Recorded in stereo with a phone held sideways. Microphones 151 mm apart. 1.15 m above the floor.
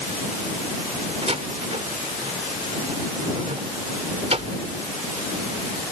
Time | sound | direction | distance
1.2 | a door slam | 45° right (ahead or behind) | ?